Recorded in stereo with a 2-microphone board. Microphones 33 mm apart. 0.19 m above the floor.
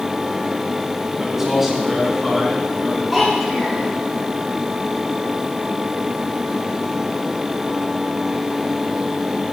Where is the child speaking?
Centre (ahead or behind), 2.5 m.